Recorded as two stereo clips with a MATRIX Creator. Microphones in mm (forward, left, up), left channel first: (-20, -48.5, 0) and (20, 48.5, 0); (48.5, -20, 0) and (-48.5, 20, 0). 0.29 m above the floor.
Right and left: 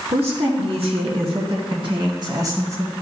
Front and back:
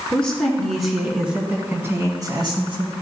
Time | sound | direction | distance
0.1 | a woman speaking | 55° left | 3.5 m